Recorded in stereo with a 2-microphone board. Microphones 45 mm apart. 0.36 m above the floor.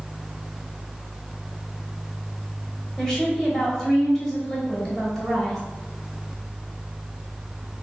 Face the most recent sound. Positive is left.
turn(degrees=5)  # may be behind; listen again after turning